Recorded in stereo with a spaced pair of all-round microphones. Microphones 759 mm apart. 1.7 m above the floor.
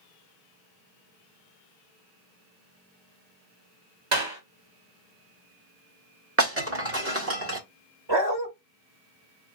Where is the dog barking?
35° right (ahead or behind), 1.7 m.